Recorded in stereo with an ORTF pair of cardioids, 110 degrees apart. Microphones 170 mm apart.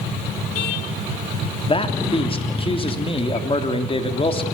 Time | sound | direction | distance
1.6 | a man speaking | 30° left | 3.5 m